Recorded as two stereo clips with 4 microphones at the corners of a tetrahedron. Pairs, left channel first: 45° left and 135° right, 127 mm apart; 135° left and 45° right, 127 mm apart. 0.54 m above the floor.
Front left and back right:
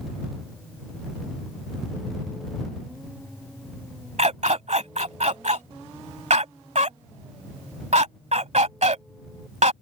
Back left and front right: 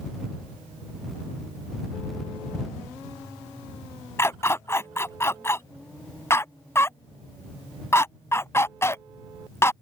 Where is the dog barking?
155° right.